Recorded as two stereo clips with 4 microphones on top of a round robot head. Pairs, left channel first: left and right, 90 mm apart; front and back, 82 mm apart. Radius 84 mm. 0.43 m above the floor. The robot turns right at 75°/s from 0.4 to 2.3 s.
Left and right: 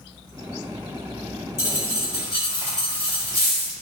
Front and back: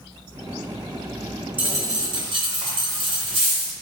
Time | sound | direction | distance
1.6 | a dropped coin | 110° left | 1.7 m